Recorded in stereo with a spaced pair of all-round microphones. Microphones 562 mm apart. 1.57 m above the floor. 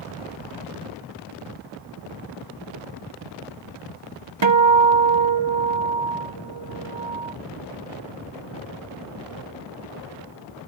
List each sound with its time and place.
4.4 s a guitar: 50° right (ahead or behind)